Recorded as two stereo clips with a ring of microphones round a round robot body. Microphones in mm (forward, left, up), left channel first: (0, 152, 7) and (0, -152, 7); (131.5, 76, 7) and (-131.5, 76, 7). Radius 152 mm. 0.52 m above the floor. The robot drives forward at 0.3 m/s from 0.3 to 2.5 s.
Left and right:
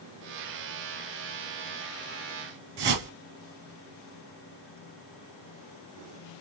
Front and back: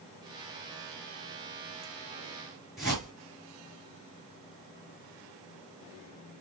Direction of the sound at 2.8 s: 90° right.